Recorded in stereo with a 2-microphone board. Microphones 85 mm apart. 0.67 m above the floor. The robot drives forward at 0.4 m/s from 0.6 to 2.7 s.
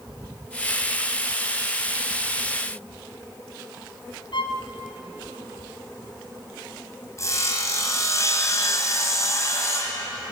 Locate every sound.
4.3 s a violin: 85° left, 2.5 m
7.2 s sawing: 35° left (ahead or behind), 3 m